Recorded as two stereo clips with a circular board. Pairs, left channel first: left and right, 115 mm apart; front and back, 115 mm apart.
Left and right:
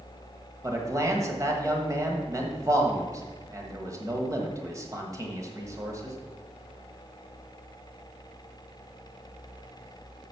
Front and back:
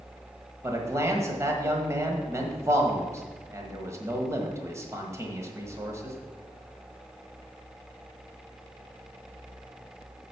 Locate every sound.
0.6 s a man speaking: 135° right, 1.4 m